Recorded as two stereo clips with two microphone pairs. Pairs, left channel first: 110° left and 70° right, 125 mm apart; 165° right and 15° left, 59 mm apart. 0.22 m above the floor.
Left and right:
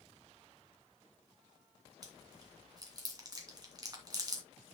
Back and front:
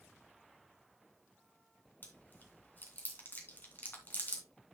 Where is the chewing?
120° right, 2.5 m.